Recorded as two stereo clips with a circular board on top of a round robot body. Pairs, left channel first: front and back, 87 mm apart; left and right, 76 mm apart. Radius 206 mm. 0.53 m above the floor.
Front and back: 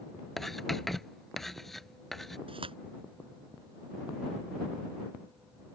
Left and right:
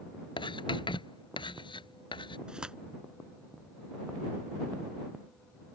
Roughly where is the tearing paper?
Behind.